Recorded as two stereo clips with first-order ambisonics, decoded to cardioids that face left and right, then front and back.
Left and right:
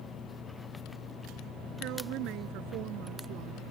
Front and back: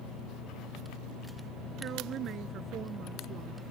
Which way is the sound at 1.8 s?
125° right.